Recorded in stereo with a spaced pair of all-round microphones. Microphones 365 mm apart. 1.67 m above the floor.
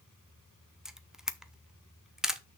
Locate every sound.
0.8 s a camera shutter: centre (ahead or behind), 0.7 m